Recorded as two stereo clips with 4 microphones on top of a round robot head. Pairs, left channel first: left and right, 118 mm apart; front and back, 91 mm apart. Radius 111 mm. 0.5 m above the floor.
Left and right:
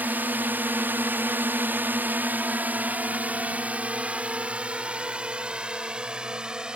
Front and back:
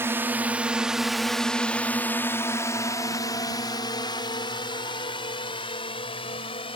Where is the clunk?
I don't hear a clunk.